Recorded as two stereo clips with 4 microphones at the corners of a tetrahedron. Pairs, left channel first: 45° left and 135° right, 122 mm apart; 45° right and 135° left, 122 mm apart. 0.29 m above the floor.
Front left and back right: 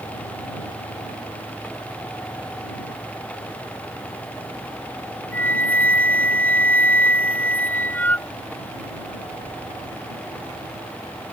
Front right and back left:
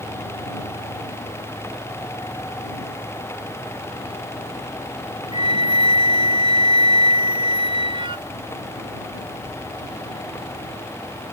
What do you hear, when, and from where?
5.3 s a flute: 115° left